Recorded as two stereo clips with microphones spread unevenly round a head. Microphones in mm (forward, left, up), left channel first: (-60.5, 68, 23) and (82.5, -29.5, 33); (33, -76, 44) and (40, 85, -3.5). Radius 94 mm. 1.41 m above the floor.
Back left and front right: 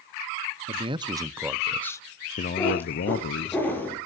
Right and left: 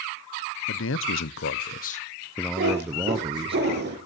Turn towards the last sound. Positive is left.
turn(degrees=65)